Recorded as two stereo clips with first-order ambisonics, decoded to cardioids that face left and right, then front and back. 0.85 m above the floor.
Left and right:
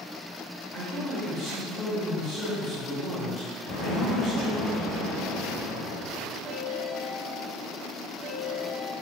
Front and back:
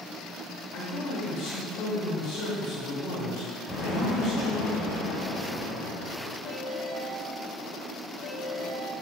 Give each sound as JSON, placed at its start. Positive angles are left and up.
{"t": 0.7, "sound": "a man speaking", "azimuth_deg": 15, "distance_m": 1.8}
{"t": 3.7, "sound": "an explosion", "azimuth_deg": 70, "distance_m": 1.3}
{"t": 6.5, "sound": "a ringtone", "azimuth_deg": -15, "distance_m": 1.2}